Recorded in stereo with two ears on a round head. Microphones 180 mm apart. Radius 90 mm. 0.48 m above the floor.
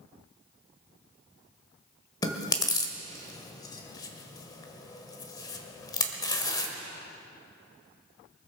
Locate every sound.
2.2 s chewing: 20° left (ahead or behind), 1.5 m